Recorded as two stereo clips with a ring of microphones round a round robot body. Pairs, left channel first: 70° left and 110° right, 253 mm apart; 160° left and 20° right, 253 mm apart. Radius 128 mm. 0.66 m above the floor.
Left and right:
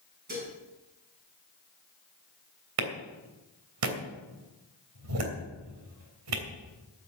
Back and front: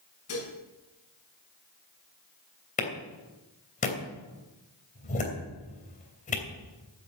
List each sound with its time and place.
0.3 s dishes clattering: 170° right, 5 m
2.8 s a clap: 140° right, 3 m